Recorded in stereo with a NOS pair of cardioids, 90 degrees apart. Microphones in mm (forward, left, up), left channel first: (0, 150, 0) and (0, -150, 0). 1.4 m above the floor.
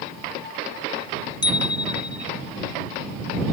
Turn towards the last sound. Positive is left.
turn(degrees=15)